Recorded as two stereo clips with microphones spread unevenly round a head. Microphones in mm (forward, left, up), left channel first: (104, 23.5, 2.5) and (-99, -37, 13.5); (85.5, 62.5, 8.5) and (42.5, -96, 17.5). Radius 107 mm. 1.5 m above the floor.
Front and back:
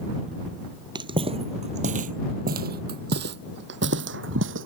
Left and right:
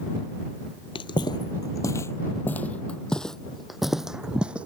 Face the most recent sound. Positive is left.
turn(degrees=170)